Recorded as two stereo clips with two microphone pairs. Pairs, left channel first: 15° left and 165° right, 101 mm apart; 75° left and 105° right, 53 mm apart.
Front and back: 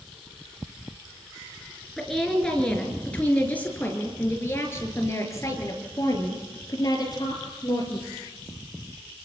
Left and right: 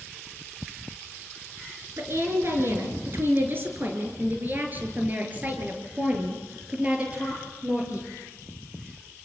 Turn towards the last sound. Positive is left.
turn(degrees=-35)